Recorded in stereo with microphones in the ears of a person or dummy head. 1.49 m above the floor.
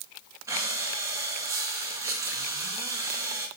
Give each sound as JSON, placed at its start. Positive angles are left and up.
{"t": 0.5, "sound": "breathing", "side_deg": -15, "distance_m": 1.0}